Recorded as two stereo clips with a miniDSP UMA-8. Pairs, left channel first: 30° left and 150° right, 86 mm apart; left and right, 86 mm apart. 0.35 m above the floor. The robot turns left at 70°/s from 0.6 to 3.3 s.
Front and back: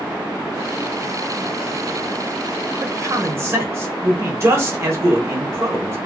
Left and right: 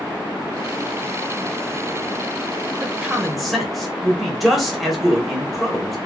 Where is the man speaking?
145° right, 1.0 m; by 6.0 s straight behind, 1.0 m.